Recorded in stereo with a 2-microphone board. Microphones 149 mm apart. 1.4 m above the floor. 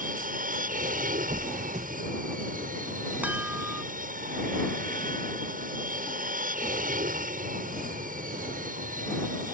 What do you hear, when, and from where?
0.0 s an aircraft: 65° right (ahead or behind)
1.3 s a squeak: 50° right (ahead or behind)
3.2 s a chime: 10° right (ahead or behind)